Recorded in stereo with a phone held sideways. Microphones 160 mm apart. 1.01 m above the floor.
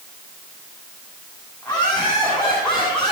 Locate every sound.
1.6 s laughter: 10° left (ahead or behind), 9.5 m; by 3.1 s 5° left (ahead or behind), 8.5 m